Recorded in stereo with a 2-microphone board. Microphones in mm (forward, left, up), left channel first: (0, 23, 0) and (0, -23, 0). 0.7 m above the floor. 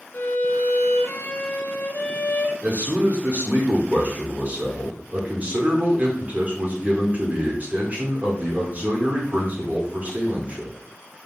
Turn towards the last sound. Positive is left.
turn(degrees=-40)  # may be behind; listen again after turning